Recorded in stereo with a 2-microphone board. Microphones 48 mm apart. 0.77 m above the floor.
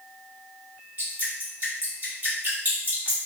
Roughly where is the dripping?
Right.